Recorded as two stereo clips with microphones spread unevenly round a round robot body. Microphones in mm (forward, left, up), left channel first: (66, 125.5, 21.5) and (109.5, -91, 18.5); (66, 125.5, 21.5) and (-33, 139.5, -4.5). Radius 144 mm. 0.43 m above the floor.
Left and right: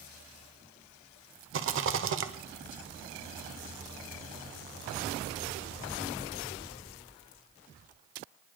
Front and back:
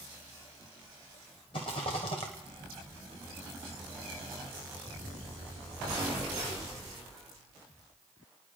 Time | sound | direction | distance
1.5 | a rattle | 65° right | 1.1 m